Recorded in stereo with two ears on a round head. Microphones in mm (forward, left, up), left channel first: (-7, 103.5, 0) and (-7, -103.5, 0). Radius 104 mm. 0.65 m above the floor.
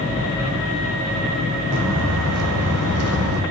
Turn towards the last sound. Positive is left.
turn(degrees=-70)  # may be behind; listen again after turning